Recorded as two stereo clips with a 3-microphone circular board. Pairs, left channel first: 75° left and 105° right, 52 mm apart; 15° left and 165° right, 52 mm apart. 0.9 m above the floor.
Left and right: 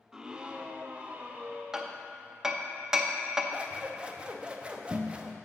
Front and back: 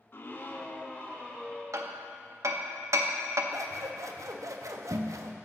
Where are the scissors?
175° right, 0.5 m.